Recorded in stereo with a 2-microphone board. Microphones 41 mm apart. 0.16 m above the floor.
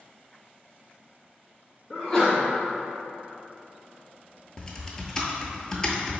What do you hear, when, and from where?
1.9 s a sneeze: 15° left (ahead or behind), 1.4 m
4.6 s typing on a keyboard: 15° left (ahead or behind), 0.6 m